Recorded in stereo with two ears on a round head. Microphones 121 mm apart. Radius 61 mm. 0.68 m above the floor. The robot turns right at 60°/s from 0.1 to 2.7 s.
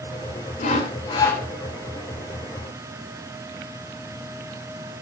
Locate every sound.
0.6 s sawing: 110° left, 3 m; by 1.4 s 160° left, 3 m